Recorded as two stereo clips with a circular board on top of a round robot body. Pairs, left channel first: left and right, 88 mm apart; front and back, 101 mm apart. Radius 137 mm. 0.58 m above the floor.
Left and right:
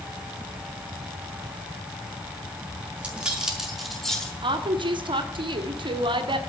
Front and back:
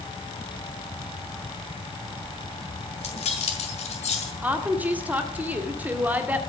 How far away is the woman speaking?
About 1.8 m.